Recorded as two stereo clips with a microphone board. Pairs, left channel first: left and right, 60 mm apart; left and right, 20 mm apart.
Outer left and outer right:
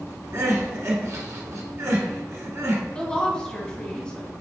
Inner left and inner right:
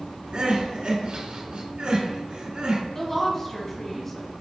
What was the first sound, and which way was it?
Crying, 55° right (ahead or behind).